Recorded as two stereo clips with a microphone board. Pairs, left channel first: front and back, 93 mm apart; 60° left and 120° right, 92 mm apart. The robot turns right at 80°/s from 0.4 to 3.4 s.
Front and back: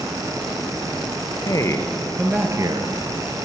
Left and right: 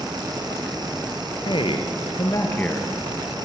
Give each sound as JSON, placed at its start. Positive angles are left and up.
{"t": 1.4, "sound": "a man speaking", "azimuth_deg": 40, "distance_m": 3.0}